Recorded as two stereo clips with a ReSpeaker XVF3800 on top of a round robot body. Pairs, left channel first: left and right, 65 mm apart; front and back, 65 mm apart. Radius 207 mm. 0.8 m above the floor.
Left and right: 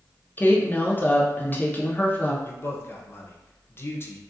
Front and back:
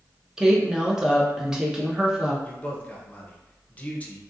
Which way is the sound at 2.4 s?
55° left.